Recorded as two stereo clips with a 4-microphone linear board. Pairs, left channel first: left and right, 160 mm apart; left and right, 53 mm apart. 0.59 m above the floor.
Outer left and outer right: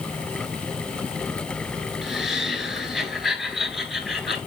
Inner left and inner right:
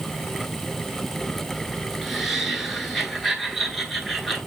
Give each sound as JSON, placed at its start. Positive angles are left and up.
{"t": 2.0, "sound": "laughter", "side_deg": 0, "distance_m": 4.5}